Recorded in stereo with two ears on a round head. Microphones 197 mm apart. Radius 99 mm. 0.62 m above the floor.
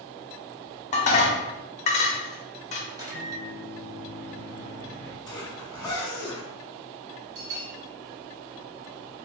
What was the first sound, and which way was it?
Dishes clattering, 35° left (ahead or behind).